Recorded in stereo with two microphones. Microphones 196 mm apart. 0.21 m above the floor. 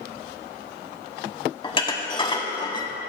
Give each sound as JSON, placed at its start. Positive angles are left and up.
{"t": 1.6, "sound": "dishes clattering", "side_deg": 25, "distance_m": 0.8}